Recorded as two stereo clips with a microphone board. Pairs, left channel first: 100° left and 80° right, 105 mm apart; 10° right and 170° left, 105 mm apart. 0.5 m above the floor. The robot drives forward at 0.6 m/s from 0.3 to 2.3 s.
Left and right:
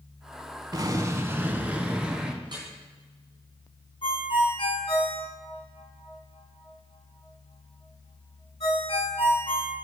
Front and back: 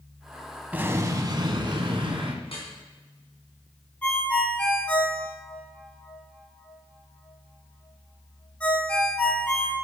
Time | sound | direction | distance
0.7 | an explosion | 120° right | 0.5 m
2.4 | dripping | 35° right | 3.5 m
4.0 | a ringtone | 65° left | 1.7 m